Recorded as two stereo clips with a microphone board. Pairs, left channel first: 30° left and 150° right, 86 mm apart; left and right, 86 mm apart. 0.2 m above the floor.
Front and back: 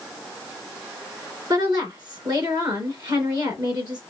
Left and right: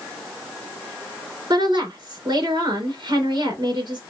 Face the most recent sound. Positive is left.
turn(degrees=-120)